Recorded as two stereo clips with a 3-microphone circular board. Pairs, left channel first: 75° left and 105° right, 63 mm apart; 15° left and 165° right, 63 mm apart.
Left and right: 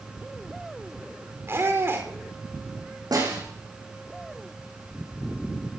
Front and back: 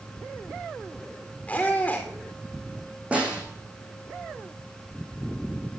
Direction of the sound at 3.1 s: 95° right.